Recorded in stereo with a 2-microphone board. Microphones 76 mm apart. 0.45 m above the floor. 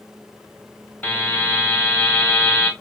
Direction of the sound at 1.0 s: 20° left (ahead or behind).